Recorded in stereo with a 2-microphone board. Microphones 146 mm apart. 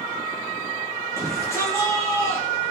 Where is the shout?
20° left (ahead or behind), 8 m.